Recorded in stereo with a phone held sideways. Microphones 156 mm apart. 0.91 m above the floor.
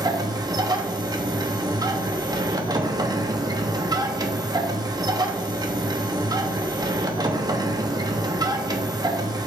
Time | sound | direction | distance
0.0 | a machine running | 25° right (ahead or behind) | 1.0 m